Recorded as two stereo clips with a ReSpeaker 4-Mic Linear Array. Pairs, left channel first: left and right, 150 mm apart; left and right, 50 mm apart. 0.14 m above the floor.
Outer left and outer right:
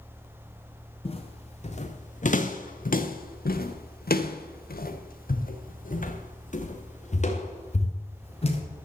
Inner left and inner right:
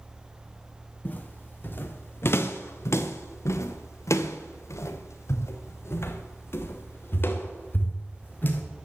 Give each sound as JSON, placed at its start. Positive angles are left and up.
{"t": 1.1, "sound": "footsteps", "side_deg": 40, "distance_m": 2.0}